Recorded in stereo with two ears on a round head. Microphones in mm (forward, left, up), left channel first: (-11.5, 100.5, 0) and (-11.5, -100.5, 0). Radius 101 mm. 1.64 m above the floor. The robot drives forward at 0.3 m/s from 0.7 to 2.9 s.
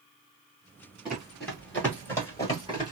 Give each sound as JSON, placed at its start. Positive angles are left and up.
{"t": 1.1, "sound": "running footsteps", "side_deg": -5, "distance_m": 1.9}